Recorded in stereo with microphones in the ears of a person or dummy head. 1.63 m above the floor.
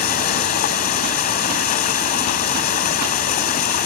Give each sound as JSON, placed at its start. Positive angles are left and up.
{"t": 0.0, "sound": "running water", "side_deg": 50}